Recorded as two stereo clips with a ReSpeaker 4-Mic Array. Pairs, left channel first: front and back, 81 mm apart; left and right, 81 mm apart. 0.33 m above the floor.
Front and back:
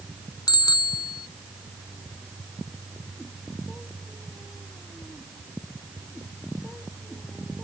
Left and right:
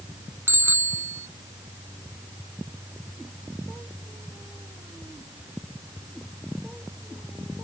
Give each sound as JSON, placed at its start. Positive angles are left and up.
{"t": 0.5, "sound": "a bicycle bell", "azimuth_deg": -30}